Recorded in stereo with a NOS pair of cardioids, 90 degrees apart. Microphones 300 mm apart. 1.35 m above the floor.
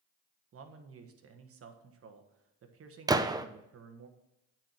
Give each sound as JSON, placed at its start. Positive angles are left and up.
{"t": 0.5, "sound": "a man speaking", "azimuth_deg": -50, "distance_m": 1.4}
{"t": 3.1, "sound": "a gunshot", "azimuth_deg": -15, "distance_m": 0.6}